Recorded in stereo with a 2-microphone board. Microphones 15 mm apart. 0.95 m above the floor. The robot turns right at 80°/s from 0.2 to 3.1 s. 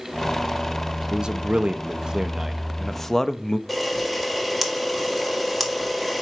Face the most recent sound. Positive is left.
turn(degrees=5)  # may be behind; listen again after turning